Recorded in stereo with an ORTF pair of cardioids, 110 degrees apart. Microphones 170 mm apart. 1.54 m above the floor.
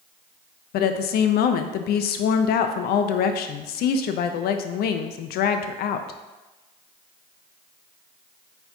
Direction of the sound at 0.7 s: 70° left.